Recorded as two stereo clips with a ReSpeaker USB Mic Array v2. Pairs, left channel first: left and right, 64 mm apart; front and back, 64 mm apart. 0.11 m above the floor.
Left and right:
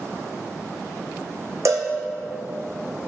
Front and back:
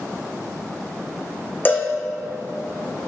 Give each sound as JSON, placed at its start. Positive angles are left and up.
{"t": 1.6, "sound": "a cowbell", "azimuth_deg": -55, "distance_m": 1.3}